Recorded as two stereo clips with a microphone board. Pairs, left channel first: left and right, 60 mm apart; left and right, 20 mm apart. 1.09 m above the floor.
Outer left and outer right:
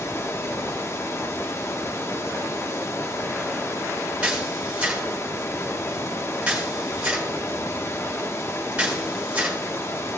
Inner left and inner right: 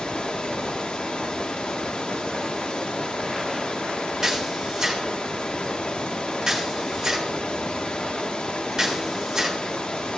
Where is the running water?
50° left (ahead or behind), 1.1 m.